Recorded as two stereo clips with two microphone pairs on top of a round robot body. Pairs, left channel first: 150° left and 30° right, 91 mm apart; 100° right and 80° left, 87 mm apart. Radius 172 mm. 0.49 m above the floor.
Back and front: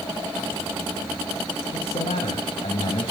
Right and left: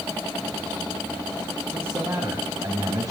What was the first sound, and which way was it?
A man speaking, 140° left.